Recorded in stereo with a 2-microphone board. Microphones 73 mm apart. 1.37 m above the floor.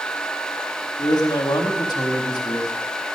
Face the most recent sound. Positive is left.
turn(degrees=75)  # may be behind; listen again after turning